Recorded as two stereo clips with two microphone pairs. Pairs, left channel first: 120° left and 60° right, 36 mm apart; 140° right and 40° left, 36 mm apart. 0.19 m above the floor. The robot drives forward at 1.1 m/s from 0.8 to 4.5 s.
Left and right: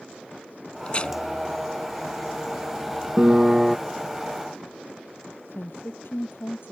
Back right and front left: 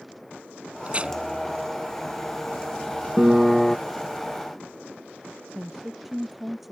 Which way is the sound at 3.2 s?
15° right.